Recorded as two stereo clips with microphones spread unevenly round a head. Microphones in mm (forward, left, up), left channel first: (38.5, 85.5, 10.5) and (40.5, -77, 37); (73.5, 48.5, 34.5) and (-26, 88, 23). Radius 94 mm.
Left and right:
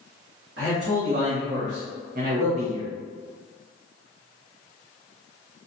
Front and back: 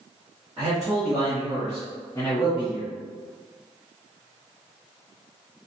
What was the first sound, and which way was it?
A man speaking, 120° right.